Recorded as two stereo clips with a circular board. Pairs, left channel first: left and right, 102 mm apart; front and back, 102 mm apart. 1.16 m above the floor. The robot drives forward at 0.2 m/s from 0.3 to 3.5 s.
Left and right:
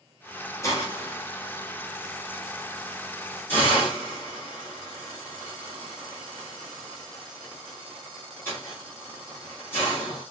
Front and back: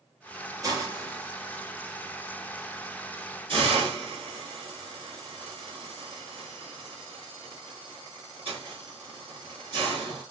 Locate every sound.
0.6 s a hiss: 140° left, 0.9 m; by 10.2 s 160° left, 1.3 m